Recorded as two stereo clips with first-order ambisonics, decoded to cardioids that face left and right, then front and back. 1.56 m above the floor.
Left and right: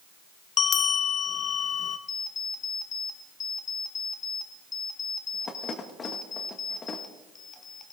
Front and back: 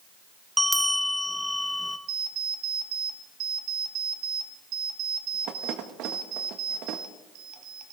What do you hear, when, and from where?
0.6 s a bell: 90° left, 0.5 m
2.1 s an alarm clock: 155° left, 1.3 m